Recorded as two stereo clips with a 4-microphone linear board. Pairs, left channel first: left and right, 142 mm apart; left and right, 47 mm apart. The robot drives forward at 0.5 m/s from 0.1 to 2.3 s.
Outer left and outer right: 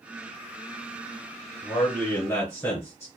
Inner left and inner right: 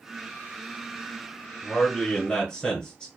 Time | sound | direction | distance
1.6 | a man speaking | 20° left (ahead or behind) | 1.1 m